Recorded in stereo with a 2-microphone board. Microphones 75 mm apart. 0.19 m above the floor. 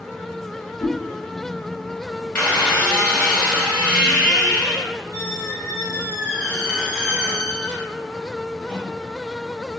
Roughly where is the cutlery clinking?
No cutlery clinking in this recording.